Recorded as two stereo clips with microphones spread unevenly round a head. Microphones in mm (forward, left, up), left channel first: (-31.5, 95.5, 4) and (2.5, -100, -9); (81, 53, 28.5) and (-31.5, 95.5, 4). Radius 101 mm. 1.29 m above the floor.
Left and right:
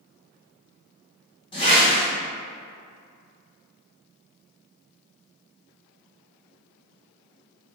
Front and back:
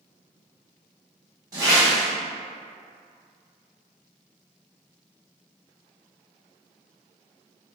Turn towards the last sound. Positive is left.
turn(degrees=110)